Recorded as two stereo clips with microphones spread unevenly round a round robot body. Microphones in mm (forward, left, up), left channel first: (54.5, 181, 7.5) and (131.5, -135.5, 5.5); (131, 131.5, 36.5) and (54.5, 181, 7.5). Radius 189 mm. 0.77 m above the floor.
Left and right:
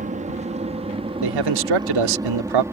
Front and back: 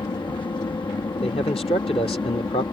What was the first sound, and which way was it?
An aircraft, 25° right.